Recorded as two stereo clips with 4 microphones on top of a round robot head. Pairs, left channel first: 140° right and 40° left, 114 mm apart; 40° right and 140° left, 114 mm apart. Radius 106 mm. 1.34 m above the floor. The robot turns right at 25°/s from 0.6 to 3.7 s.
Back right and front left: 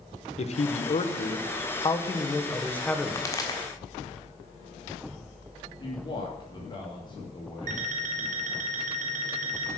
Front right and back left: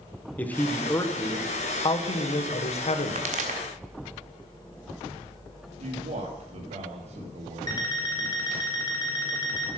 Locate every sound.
0.4 s a man speaking: 115° right, 1.4 m; by 3.3 s 50° right, 1.4 m
3.1 s a pop: 155° left, 1.5 m; by 3.6 s 165° left, 1.5 m
5.8 s a man speaking: 170° left, 2.5 m
7.7 s an alarm clock: 20° left, 2 m